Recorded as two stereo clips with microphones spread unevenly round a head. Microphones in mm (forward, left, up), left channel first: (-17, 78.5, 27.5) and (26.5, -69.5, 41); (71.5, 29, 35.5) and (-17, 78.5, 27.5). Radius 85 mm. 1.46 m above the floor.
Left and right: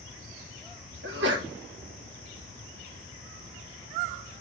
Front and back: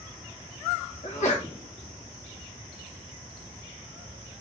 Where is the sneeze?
60° right, 1.5 m.